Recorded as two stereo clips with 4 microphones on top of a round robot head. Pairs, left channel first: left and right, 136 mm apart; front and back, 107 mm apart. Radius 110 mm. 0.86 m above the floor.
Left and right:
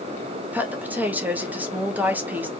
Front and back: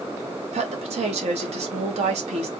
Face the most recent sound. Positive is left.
turn(degrees=-170)